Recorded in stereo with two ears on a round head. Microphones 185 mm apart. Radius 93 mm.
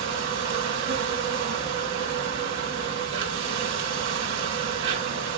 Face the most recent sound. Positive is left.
turn(degrees=-65)  # may be behind; listen again after turning